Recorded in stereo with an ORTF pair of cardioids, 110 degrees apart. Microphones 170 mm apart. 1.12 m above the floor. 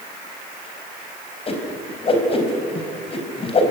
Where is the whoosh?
35° left, 4 m.